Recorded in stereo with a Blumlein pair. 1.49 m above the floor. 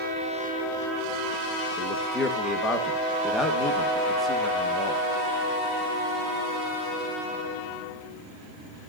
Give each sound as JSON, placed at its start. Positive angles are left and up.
{"t": 1.8, "sound": "a man speaking", "azimuth_deg": 15, "distance_m": 1.8}